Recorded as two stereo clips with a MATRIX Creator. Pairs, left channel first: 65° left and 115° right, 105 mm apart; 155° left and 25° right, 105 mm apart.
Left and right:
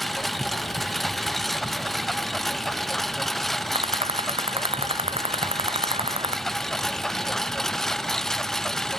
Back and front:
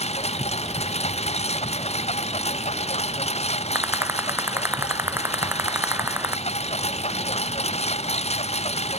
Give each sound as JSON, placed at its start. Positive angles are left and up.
{"t": 0.0, "sound": "a lawn mower", "azimuth_deg": 155}
{"t": 3.8, "sound": "a rattle", "azimuth_deg": -90}